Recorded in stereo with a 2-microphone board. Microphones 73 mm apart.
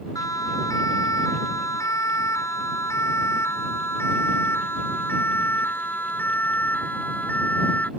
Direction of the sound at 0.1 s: 50° left (ahead or behind).